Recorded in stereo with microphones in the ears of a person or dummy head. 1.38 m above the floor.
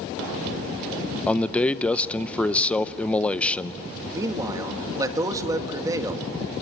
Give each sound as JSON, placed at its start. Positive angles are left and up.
{"t": 1.3, "sound": "a man speaking", "side_deg": 10, "distance_m": 0.8}
{"t": 4.1, "sound": "a man speaking", "side_deg": -15, "distance_m": 2.5}